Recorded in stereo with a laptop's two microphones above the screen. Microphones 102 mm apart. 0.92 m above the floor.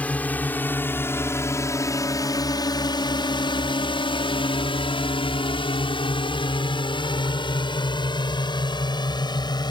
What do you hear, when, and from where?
0.0 s a drone: 15° left (ahead or behind); by 9.7 s 45° left (ahead or behind)